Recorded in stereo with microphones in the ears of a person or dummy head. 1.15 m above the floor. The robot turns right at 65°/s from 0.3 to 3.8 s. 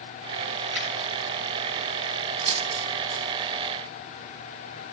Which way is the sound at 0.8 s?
10° left (ahead or behind).